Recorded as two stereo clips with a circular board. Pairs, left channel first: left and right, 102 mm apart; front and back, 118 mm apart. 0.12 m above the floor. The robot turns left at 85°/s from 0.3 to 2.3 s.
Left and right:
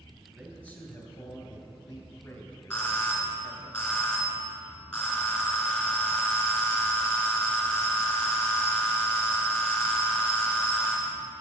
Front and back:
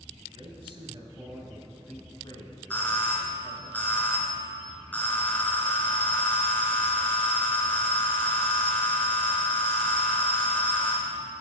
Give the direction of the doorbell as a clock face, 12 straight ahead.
11 o'clock.